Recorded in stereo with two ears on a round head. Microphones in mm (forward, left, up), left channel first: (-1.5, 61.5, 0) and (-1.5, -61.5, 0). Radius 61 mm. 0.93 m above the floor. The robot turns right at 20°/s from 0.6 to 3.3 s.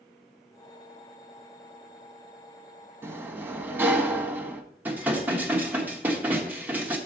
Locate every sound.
3.0 s a sliding door: 20° right (ahead or behind), 1.0 m; by 4.6 s 15° right (ahead or behind), 1.0 m
4.8 s dishes clattering: 15° right (ahead or behind), 1.3 m